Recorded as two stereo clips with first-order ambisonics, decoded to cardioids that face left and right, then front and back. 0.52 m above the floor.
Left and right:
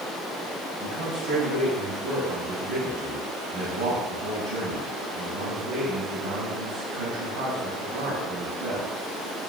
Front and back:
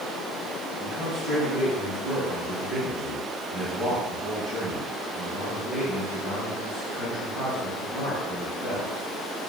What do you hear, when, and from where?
0.8 s a man speaking: 105° right, 3.5 m